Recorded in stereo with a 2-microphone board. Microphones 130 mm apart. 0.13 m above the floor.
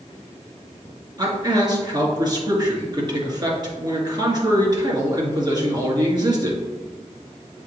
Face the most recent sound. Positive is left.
turn(degrees=-35)  # may be behind; listen again after turning